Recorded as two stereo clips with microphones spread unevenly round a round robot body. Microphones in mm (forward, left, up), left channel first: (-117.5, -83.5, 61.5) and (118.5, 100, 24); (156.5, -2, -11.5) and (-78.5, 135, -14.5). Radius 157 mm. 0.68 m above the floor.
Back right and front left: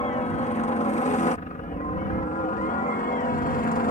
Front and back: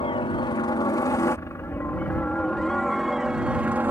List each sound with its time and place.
0.0 s a helicopter: 80° right; by 3.9 s 140° right